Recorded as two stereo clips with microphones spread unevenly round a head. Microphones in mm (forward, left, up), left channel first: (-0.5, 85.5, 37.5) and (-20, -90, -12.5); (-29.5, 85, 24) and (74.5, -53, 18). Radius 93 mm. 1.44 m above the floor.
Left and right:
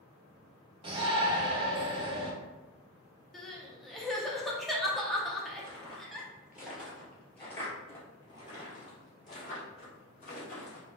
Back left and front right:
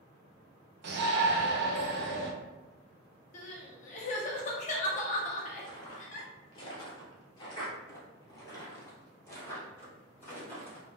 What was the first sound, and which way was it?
A shout, 30° right.